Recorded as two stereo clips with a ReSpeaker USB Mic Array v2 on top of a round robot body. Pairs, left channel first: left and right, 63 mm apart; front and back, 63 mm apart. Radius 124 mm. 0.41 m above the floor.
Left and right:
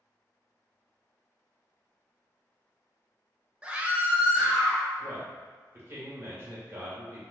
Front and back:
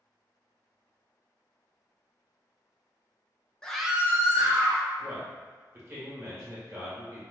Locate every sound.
3.6 s a scream: 50° right, 0.9 m; by 4.8 s 160° right, 1.6 m
5.0 s a man speaking: 140° right, 1.9 m